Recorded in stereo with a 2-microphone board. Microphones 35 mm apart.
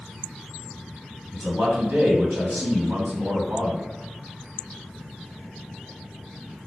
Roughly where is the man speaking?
Right.